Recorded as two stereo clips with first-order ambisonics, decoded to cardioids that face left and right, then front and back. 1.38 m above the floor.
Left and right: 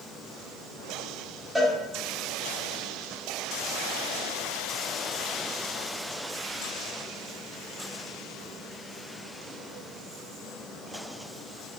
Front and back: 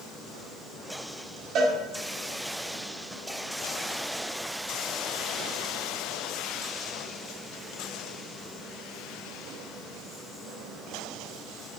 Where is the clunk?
I don't hear a clunk.